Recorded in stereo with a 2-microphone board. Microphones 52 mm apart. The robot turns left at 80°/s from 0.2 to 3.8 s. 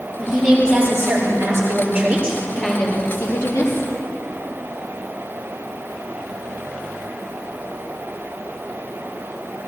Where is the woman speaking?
15° left, 5 m; by 3.9 s 85° left, 5 m.